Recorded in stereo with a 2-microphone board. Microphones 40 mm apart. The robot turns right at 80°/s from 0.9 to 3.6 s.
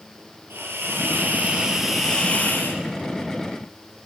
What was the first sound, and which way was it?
A hiss, 80° right.